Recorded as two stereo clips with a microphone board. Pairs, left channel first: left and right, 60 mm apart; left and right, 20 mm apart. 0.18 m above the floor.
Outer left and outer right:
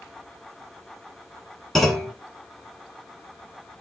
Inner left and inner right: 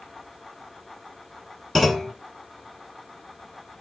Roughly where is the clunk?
Centre.